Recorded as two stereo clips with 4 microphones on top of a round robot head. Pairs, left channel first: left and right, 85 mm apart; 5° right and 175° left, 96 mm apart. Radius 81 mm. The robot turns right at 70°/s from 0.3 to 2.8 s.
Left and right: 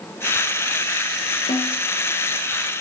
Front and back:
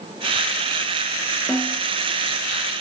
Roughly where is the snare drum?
Left.